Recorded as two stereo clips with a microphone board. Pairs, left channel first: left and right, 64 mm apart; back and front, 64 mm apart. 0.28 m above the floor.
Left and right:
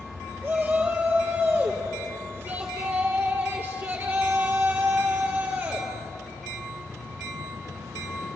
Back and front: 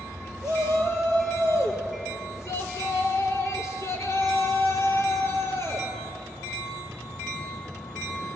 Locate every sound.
0.4 s a shout: 145° right, 5.5 m